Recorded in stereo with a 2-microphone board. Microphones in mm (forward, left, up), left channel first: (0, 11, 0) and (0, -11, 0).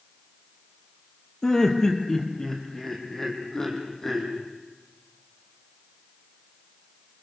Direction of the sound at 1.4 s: 25° left (ahead or behind).